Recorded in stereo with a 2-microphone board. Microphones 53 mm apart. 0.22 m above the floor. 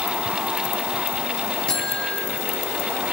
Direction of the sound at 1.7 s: 20° left (ahead or behind).